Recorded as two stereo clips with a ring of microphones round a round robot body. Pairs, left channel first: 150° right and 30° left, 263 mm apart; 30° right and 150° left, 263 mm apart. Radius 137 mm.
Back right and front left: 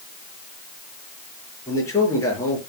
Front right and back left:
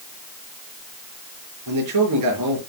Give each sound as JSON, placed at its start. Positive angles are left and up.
{"t": 1.7, "sound": "a man speaking", "azimuth_deg": 130, "distance_m": 5.0}